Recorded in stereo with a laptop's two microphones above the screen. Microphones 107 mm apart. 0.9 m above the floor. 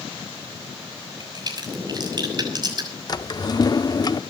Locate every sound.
1.2 s a crack: 40° right (ahead or behind), 6 m
3.1 s a drawer: 40° left (ahead or behind), 0.6 m